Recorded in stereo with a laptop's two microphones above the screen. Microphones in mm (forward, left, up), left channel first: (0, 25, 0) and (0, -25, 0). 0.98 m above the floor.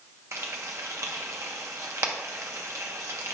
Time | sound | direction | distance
0.3 | frying | 80° right | 1.0 m